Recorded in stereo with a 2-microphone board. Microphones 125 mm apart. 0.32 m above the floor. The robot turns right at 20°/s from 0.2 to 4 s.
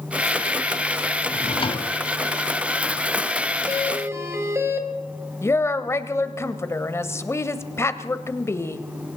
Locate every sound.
1.3 s a drawer: 50° left (ahead or behind), 1.0 m; by 1.9 s 40° left (ahead or behind), 1.0 m
3.7 s a doorbell: 25° right (ahead or behind), 1.9 m; by 4.9 s 20° right (ahead or behind), 1.9 m
5.4 s a woman speaking: 20° left (ahead or behind), 1.1 m